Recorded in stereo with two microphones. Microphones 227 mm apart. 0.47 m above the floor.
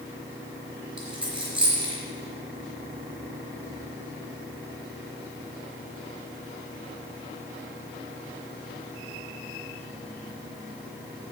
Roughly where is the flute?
I don't hear a flute.